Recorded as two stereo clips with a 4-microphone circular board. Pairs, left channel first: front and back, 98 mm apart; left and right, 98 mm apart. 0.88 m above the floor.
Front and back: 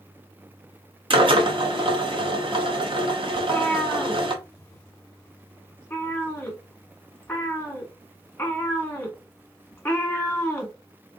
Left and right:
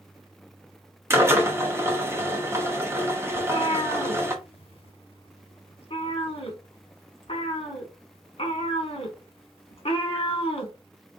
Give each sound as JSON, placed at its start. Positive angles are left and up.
{"t": 1.1, "sound": "a drill", "azimuth_deg": -155, "distance_m": 0.9}
{"t": 3.4, "sound": "a cat meowing", "azimuth_deg": 75, "distance_m": 1.1}